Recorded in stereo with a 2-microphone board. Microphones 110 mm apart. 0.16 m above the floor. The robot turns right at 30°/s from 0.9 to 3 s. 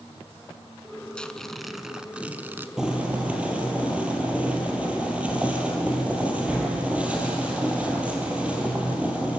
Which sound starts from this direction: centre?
Boiling, at 2.8 s.